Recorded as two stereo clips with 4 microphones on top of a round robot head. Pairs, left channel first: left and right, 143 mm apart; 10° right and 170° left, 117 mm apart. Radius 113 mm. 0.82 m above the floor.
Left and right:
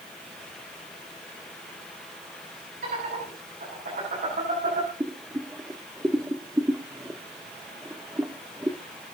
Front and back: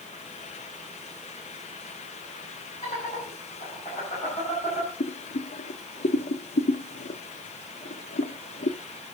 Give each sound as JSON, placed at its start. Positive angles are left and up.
{"t": 2.8, "sound": "laughter", "azimuth_deg": -60, "distance_m": 8.5}
{"t": 5.0, "sound": "boiling", "azimuth_deg": -10, "distance_m": 0.9}